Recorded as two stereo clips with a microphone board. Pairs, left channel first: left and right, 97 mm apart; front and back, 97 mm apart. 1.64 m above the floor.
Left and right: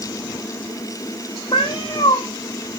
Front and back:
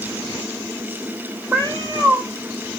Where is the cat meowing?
125° left, 3.5 m.